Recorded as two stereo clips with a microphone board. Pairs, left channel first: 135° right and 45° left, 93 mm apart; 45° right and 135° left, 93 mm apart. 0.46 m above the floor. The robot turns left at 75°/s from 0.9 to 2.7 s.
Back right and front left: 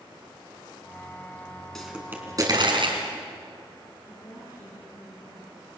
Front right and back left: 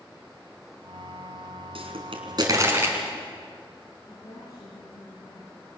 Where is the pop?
140° left, 4 m; by 3.0 s 70° left, 4 m.